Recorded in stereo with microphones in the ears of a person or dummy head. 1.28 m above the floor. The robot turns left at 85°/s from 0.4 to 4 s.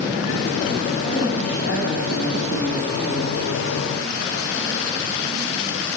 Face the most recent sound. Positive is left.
turn(degrees=-80)